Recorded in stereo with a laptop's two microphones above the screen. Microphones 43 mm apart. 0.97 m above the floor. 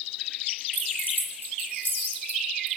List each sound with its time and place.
0.7 s keys jangling: 60° left (ahead or behind), 6.5 m; by 2.8 s 50° left (ahead or behind), 6 m